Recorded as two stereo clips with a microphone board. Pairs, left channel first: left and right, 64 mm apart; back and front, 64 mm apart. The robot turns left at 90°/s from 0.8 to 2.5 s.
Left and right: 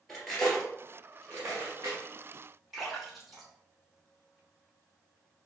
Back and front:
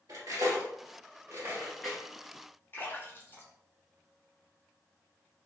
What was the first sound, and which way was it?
Cutlery clinking, 5° left.